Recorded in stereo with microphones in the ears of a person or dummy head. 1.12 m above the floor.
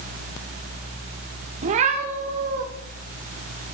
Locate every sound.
1.6 s a cat meowing: 35° right (ahead or behind), 1.2 m; by 2.6 s 40° right (ahead or behind), 1.9 m